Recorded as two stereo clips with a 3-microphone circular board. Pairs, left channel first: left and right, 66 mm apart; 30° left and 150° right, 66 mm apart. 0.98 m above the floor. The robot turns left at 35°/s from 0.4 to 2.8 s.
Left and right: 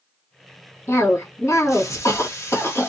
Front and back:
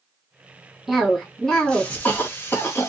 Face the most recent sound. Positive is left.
turn(degrees=60)